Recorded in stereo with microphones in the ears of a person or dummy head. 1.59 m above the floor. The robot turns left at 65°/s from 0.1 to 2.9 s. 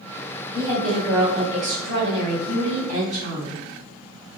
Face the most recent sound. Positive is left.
turn(degrees=-135)